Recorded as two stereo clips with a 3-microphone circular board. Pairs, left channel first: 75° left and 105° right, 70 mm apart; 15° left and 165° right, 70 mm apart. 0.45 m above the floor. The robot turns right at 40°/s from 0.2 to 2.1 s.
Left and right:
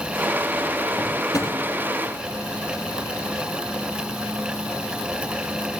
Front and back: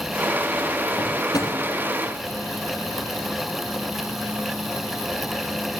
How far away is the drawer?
About 3 m.